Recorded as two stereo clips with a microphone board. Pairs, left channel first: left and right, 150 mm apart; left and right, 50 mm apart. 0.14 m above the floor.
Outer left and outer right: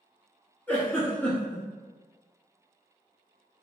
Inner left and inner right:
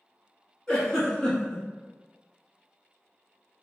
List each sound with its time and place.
0.7 s a giggle: 10° left (ahead or behind), 1.1 m